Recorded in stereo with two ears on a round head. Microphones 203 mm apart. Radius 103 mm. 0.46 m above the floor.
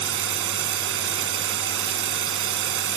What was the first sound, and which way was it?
Running water, 60° right (ahead or behind).